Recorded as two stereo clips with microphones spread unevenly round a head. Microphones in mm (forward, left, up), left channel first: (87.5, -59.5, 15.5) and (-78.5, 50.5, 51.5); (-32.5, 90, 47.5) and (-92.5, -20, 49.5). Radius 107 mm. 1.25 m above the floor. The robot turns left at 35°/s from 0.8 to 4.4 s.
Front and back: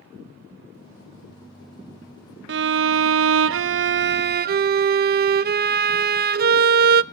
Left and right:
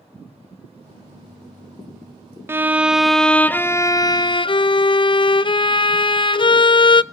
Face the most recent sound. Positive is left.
turn(degrees=105)